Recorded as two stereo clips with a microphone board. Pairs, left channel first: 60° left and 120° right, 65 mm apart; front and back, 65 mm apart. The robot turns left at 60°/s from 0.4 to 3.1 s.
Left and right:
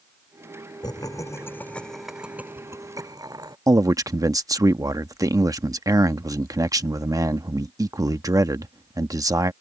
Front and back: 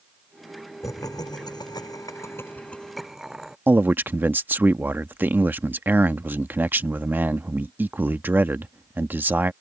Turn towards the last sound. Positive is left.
turn(degrees=-125)